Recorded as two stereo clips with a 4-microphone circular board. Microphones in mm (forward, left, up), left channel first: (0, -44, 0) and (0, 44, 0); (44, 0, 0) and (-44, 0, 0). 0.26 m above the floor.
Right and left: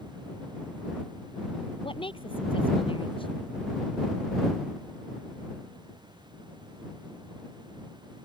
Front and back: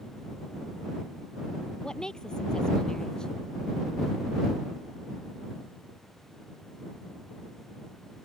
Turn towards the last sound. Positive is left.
turn(degrees=-80)